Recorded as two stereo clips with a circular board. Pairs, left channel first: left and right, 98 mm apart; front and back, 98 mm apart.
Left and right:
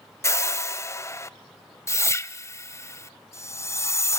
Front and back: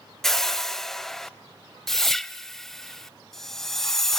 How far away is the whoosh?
About 0.6 m.